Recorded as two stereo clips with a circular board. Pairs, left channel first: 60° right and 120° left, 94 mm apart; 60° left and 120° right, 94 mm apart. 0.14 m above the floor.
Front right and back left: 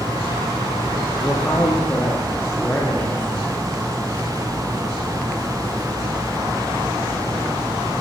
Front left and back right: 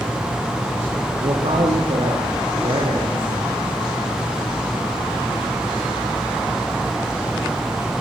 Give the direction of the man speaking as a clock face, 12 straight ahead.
4 o'clock.